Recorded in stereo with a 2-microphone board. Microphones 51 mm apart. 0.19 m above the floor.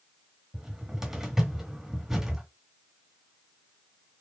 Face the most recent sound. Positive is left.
turn(degrees=-10)  # may be behind; listen again after turning